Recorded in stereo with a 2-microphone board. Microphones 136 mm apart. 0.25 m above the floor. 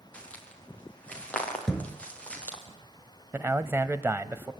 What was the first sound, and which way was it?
Footsteps, 10° left (ahead or behind).